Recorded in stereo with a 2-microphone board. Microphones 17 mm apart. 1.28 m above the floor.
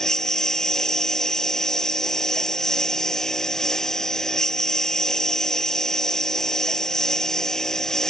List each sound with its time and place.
0.0 s a lawn mower: 35° left (ahead or behind)